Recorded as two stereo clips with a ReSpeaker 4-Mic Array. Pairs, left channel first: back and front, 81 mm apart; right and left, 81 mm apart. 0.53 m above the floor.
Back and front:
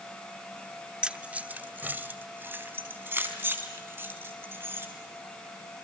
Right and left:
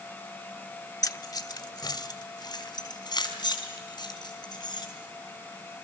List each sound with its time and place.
1.0 s keys jangling: 75° right, 0.9 m; by 4.8 s 60° right, 6 m